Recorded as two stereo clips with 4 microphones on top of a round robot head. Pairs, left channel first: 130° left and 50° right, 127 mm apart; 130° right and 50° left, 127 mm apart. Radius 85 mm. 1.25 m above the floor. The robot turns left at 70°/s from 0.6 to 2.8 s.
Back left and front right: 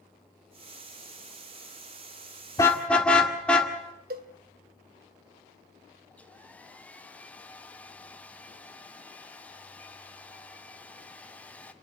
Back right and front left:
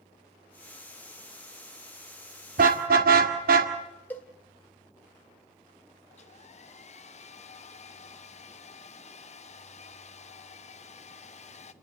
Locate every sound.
2.6 s a car horn: 65° left, 2 m; by 3.7 s 50° left, 2 m
4.1 s a cowbell: 55° right, 1.6 m
6.1 s a hair dryer: 150° right, 1.0 m